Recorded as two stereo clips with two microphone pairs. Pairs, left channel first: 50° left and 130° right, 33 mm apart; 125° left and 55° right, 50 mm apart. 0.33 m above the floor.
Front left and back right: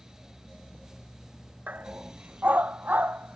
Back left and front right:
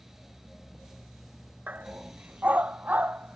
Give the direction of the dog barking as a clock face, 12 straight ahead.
4 o'clock.